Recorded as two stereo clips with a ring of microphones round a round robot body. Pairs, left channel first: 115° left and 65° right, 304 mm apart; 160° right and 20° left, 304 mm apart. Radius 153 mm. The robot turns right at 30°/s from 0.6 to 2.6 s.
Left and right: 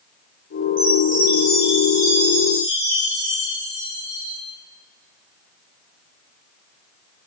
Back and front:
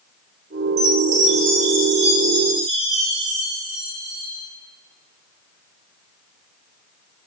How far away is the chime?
About 3 m.